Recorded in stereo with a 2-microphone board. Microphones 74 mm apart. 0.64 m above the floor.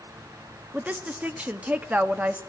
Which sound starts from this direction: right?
A woman speaking, at 0.7 s.